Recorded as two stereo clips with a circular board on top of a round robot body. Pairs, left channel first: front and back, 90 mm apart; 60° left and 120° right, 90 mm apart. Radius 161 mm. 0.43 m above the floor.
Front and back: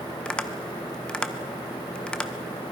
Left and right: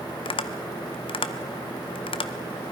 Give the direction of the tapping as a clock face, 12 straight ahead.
9 o'clock.